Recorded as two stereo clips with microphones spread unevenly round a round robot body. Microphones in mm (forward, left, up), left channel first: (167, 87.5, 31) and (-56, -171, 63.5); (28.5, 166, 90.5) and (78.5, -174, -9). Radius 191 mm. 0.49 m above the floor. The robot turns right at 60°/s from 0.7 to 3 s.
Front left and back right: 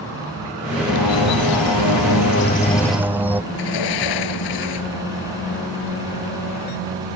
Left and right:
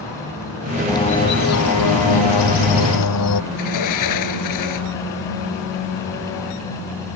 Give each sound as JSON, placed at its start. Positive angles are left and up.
{"t": 0.9, "sound": "a bird", "azimuth_deg": 15}
{"t": 3.5, "sound": "a sliding door", "azimuth_deg": 70}